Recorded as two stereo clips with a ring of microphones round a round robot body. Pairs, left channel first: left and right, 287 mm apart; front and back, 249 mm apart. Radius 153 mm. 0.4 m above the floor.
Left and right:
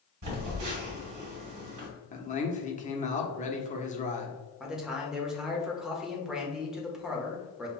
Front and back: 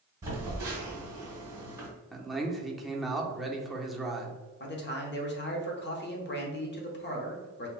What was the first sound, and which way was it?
A phone buzzing, 100° right.